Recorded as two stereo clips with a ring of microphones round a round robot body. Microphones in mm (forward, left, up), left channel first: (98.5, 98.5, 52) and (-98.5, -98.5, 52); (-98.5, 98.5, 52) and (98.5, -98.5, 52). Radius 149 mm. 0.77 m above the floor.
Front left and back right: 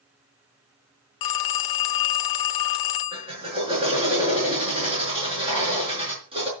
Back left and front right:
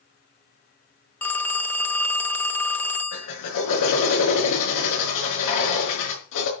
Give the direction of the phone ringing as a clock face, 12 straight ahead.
10 o'clock.